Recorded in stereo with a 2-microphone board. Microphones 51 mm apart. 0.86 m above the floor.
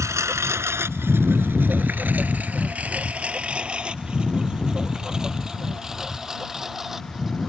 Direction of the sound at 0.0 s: 70° right (ahead or behind).